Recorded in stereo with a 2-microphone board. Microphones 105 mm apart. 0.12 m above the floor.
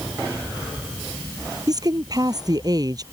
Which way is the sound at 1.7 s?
40° right (ahead or behind).